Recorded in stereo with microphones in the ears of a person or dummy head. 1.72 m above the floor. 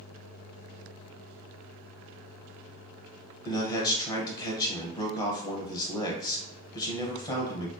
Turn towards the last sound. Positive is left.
turn(degrees=20)  # may be behind; listen again after turning